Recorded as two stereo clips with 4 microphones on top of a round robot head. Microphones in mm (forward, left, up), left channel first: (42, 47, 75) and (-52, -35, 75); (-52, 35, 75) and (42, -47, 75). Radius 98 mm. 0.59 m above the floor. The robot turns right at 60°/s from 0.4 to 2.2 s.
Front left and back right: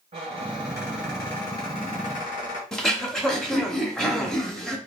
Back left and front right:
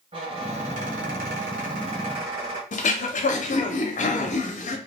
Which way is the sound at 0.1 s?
90° right.